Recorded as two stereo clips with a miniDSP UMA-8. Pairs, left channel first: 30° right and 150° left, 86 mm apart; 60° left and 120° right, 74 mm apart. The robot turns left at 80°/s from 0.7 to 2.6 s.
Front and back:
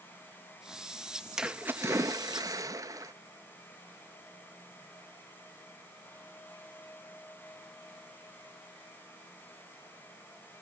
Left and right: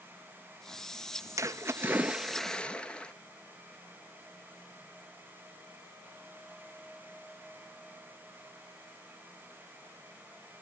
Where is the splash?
130° right, 0.6 m; by 3.1 s 130° left, 0.6 m.